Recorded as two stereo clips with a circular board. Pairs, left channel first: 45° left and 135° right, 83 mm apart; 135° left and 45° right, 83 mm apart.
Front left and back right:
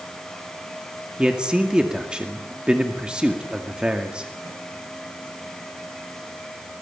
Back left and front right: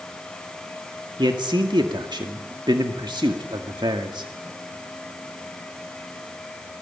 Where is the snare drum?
No snare drum in this recording.